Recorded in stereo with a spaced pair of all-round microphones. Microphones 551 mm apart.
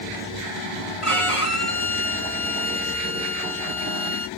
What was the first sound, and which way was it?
A violin, 70° left (ahead or behind).